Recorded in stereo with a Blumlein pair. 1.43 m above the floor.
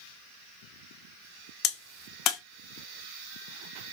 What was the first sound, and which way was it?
A crack, 35° left.